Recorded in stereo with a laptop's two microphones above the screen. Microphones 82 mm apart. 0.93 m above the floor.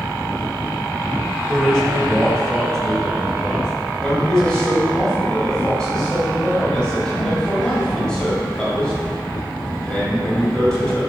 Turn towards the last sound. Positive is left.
turn(degrees=10)  # may be behind; listen again after turning